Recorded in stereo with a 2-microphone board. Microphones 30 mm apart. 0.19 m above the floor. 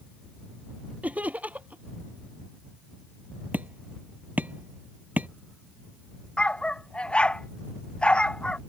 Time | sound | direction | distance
1.0 | laughter | 60° right (ahead or behind) | ?
3.5 | hammering | 65° right (ahead or behind) | ?
6.4 | a dog barking | 40° left (ahead or behind) | ?